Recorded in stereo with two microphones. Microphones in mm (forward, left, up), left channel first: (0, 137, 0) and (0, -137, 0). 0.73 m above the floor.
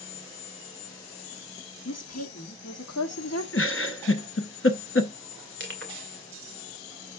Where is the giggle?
50° left (ahead or behind), 0.7 m.